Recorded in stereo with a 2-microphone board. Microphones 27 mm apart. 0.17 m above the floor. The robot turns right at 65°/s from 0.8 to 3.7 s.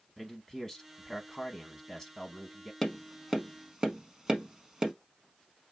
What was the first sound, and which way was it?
A man speaking, 15° left (ahead or behind).